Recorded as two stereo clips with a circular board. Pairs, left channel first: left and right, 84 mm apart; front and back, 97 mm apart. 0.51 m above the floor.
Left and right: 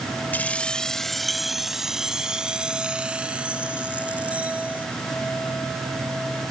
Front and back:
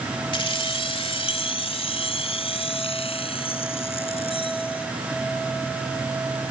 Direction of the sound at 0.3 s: 25° left.